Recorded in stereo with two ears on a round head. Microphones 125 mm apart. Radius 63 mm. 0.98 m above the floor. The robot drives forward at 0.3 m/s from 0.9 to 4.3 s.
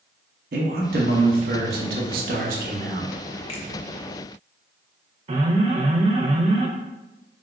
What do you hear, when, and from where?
0.5 s a man speaking: 70° right (ahead or behind), 0.8 m; by 3.1 s 60° right (ahead or behind), 0.9 m
3.5 s a finger snap: 45° left (ahead or behind), 0.8 m
5.3 s an alarm: 40° right (ahead or behind), 0.5 m